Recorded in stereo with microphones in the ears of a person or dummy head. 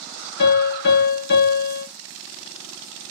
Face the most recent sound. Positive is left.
turn(degrees=55)  # may be behind; listen again after turning